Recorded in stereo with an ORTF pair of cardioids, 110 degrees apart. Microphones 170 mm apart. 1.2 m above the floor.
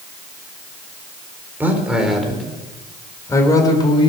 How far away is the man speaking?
About 4 m.